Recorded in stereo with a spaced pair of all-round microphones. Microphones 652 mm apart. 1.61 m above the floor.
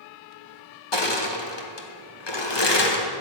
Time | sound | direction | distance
0.9 | crushing | 40° left (ahead or behind) | 1.1 m